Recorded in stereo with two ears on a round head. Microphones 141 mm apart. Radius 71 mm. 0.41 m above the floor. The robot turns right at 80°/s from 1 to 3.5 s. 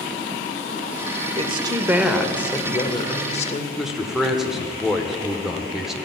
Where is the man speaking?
5° right (ahead or behind), 1.0 m.